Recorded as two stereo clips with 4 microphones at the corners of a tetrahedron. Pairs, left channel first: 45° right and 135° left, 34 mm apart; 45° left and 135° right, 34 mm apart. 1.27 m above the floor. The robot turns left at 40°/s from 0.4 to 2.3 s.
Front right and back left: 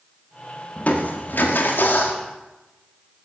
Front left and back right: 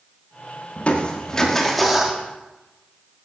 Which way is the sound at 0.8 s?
Straight ahead.